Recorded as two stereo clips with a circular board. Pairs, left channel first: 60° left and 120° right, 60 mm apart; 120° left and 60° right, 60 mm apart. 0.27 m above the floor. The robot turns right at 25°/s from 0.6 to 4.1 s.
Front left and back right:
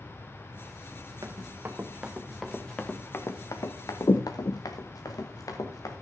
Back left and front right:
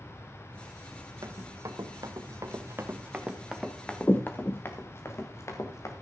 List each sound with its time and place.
1.2 s running footsteps: 80° right, 2 m; by 5.9 s 85° left, 2.5 m